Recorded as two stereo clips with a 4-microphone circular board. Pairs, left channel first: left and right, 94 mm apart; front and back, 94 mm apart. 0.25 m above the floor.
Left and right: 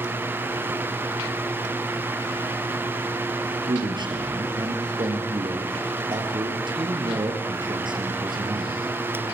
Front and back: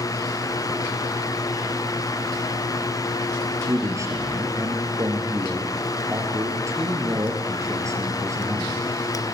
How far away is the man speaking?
About 5.5 m.